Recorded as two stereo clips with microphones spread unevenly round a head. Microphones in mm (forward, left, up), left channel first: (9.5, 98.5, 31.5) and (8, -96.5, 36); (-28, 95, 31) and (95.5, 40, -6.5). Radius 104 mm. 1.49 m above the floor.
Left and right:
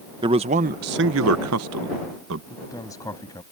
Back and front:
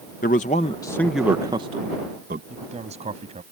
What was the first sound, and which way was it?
A man speaking, 160° right.